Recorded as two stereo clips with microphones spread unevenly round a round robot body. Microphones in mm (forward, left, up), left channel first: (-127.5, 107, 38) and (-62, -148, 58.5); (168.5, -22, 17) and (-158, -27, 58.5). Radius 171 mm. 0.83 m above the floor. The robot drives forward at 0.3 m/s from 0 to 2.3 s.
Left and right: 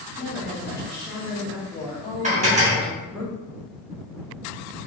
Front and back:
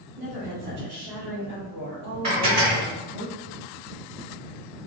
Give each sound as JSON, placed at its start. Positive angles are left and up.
{"t": 0.2, "sound": "a woman speaking", "azimuth_deg": 175, "distance_m": 1.5}
{"t": 2.2, "sound": "dishes clattering", "azimuth_deg": -140, "distance_m": 1.6}